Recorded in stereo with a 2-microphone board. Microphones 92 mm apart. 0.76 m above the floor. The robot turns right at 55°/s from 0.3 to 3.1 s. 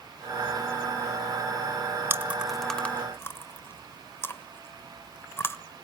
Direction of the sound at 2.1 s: 25° right (ahead or behind).